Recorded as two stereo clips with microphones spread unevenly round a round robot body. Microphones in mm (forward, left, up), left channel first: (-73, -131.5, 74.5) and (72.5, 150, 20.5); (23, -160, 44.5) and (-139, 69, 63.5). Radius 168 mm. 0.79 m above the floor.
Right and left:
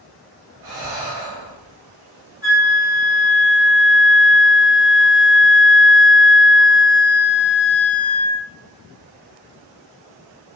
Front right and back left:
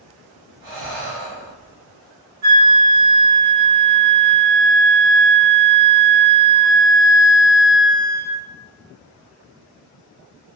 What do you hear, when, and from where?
0.6 s breathing: 100° left, 1.2 m
2.4 s a flute: 130° left, 1.5 m